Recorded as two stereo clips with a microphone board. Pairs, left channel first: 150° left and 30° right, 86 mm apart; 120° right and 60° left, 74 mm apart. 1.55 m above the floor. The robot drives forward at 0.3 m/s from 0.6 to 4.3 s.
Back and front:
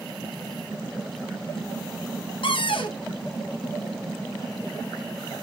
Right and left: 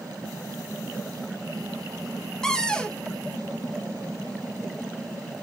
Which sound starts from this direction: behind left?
A cupboard door, at 2.4 s.